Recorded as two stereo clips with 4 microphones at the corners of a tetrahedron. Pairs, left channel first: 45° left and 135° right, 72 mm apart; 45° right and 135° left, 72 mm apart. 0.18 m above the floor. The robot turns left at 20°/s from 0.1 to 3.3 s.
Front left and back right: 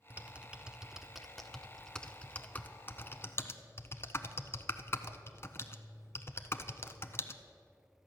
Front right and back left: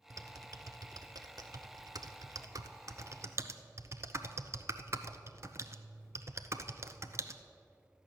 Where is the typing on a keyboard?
160° left, 0.6 m; by 7.4 s 95° left, 0.6 m.